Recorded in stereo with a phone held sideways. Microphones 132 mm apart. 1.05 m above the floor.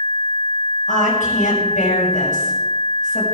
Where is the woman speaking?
80° left, 6 m.